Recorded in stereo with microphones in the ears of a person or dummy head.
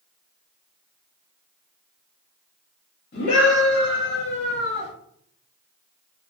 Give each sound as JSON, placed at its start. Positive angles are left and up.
{"t": 3.1, "sound": "a scream", "side_deg": 50, "distance_m": 1.3}